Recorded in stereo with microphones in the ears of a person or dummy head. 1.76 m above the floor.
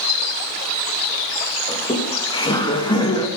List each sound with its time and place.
1.7 s laughter: 20° left (ahead or behind), 2 m